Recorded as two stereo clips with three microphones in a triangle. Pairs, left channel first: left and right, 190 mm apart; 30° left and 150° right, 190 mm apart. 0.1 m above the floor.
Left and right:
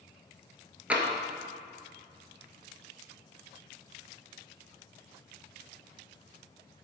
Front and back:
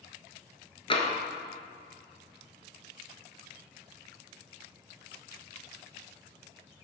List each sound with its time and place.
0.9 s tapping: 10° right, 1.2 m